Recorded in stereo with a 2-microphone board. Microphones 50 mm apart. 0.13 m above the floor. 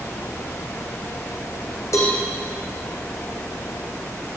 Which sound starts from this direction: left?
A cowbell, at 1.9 s.